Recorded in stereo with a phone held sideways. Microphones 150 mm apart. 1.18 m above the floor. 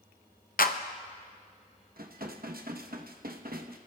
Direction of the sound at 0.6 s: 75° left (ahead or behind).